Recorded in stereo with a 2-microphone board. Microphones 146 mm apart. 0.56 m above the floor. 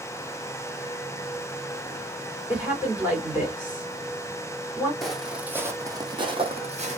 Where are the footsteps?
Centre (ahead or behind), 1.0 m; by 7.0 s 50° right (ahead or behind), 1.1 m.